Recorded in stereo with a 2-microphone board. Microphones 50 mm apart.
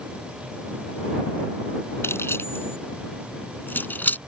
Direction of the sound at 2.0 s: 60° left (ahead or behind).